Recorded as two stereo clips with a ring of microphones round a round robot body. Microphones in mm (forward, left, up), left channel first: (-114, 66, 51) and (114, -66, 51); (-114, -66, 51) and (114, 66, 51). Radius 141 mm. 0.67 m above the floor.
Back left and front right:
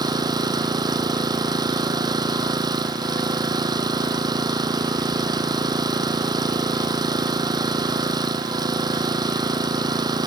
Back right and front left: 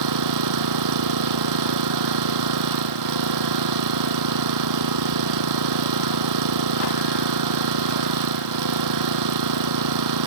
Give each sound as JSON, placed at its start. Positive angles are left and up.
{"t": 0.0, "sound": "an engine running", "azimuth_deg": 45}